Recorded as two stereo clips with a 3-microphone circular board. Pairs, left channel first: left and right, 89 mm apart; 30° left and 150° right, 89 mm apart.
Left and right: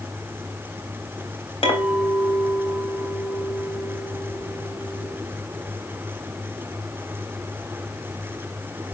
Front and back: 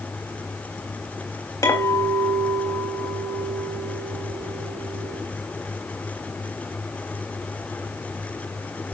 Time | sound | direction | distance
1.6 | a clink | 80° left | 3.5 m